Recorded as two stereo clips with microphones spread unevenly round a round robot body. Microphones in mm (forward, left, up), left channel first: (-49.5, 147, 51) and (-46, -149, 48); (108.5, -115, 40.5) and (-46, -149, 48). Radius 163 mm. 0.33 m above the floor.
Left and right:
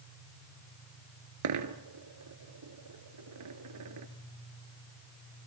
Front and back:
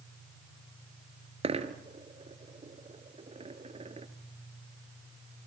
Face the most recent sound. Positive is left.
turn(degrees=-115)